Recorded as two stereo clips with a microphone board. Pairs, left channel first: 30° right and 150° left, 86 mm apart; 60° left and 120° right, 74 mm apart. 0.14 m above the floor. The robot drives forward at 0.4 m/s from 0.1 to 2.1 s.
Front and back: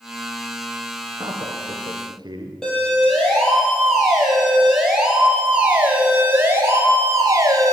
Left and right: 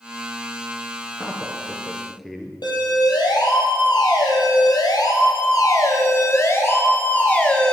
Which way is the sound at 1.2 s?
145° left.